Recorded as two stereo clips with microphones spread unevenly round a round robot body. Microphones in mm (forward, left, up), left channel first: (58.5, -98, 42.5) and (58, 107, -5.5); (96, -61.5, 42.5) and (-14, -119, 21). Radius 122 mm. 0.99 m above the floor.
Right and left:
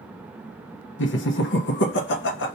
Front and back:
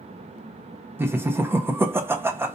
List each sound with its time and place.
1.0 s laughter: 105° right, 0.7 m